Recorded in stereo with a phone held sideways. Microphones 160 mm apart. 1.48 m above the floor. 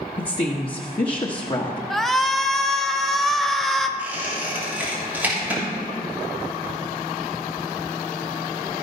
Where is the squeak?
10° right (ahead or behind), 3 m.